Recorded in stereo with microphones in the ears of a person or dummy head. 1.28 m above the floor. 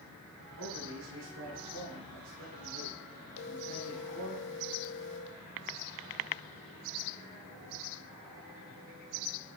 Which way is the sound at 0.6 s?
80° right.